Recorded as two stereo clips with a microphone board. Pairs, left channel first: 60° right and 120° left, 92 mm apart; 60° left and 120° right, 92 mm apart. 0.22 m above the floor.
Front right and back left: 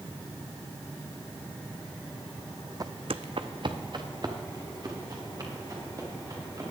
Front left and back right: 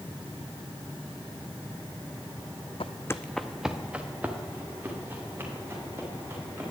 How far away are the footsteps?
About 0.5 m.